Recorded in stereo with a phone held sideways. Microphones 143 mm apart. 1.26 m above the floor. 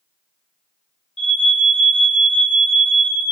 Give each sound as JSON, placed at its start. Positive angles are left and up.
{"t": 1.2, "sound": "an alarm", "side_deg": 55, "distance_m": 0.6}